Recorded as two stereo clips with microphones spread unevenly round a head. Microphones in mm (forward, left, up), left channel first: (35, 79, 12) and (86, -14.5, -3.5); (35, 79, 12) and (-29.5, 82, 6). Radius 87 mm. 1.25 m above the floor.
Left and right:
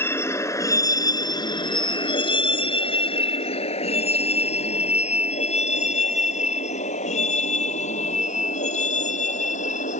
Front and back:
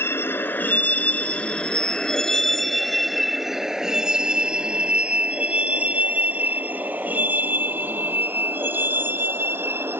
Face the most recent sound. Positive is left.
turn(degrees=120)